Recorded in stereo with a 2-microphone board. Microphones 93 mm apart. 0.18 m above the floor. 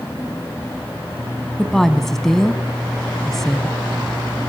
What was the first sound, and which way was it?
A woman speaking, 5° left (ahead or behind).